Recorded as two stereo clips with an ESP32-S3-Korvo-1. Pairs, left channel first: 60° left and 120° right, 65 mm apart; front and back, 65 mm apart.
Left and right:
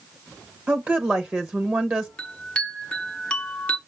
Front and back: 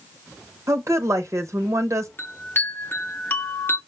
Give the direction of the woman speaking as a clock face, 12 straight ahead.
6 o'clock.